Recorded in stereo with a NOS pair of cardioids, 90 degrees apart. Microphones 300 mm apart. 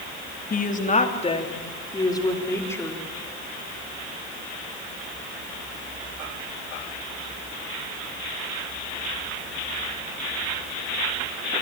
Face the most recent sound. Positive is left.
turn(degrees=5)